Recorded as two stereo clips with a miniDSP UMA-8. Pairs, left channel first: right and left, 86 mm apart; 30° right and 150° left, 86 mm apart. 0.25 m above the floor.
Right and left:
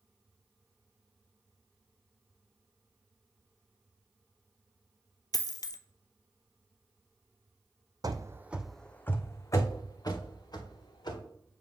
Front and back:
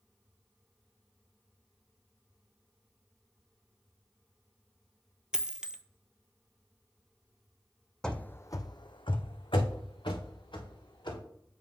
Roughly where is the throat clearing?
No throat clearing in this recording.